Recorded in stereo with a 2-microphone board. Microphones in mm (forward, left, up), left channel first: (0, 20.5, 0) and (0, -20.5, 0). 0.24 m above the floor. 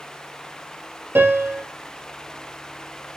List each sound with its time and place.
1.1 s a piano: 80° right, 2.5 m